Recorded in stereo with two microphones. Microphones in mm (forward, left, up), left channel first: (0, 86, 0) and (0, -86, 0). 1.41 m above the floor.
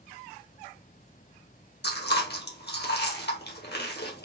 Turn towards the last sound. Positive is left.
turn(degrees=75)  # may be behind; listen again after turning